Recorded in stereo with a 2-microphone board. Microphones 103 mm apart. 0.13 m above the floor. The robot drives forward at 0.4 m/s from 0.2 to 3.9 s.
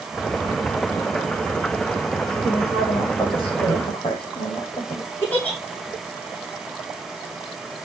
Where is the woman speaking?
60° left (ahead or behind), 8.5 m; by 5.1 s 55° left (ahead or behind), 9 m.